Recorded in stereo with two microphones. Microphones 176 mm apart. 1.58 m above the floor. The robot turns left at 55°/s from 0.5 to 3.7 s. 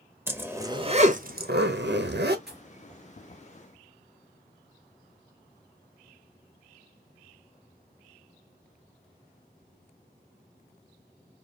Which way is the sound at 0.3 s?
15° right (ahead or behind).